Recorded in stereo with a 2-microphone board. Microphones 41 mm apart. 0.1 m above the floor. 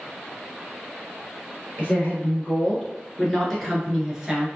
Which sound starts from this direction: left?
A woman speaking, at 1.8 s.